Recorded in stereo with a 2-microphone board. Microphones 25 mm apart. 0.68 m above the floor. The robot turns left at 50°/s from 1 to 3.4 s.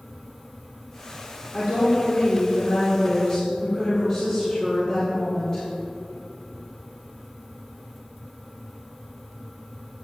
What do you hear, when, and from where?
1.5 s a woman speaking: 125° left, 2 m; by 5.6 s 30° left, 2 m